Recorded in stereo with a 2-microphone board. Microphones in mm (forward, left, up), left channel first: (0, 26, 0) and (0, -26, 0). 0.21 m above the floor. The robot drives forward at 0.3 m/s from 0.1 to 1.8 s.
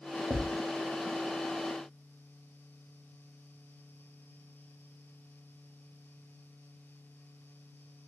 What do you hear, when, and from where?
0.3 s a thud: 25° right (ahead or behind), 0.9 m; by 0.6 s 30° right (ahead or behind), 0.8 m